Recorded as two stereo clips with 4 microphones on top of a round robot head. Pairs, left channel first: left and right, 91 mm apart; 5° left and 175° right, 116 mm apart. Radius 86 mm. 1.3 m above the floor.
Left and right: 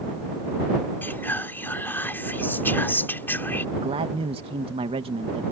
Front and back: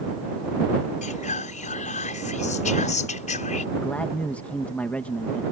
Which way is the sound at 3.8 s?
75° right.